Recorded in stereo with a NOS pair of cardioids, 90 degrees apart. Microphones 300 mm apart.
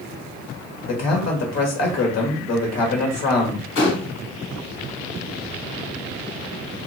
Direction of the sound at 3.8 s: 50° left.